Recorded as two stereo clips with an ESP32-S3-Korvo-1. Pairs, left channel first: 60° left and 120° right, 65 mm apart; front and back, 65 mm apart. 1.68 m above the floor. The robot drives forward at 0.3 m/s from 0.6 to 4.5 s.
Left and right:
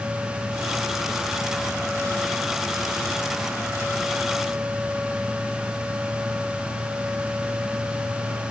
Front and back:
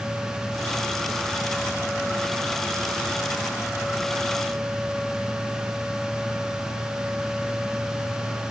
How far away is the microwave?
No microwave in this recording.